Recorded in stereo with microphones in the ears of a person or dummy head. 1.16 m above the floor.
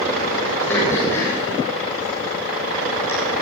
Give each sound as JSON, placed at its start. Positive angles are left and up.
{"t": 0.7, "sound": "throat clearing", "side_deg": 5, "distance_m": 6.5}